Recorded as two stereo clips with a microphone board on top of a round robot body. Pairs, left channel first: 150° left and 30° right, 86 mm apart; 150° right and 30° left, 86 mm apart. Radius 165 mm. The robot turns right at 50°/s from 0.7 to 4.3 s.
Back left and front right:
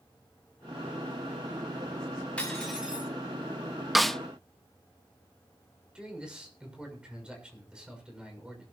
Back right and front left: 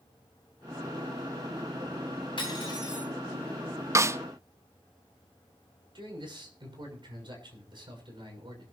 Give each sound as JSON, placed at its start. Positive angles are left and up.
{"t": 2.4, "sound": "cutlery clinking", "azimuth_deg": -135, "distance_m": 6.5}
{"t": 4.0, "sound": "a snare drum", "azimuth_deg": 60, "distance_m": 0.6}
{"t": 6.0, "sound": "a man speaking", "azimuth_deg": 50, "distance_m": 6.0}